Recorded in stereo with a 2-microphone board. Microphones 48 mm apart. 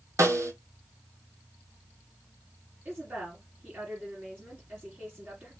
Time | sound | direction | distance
0.2 | a snare drum | 80° right | 0.7 m
2.9 | a woman speaking | 40° right (ahead or behind) | 3 m